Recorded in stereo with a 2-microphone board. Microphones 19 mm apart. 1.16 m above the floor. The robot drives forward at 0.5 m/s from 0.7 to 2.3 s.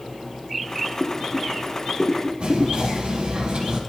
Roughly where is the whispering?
Right.